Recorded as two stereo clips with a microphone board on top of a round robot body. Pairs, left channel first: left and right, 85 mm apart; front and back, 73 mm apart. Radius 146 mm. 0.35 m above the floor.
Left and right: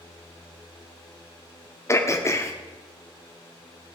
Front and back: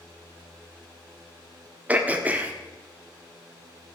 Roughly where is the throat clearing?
Behind left.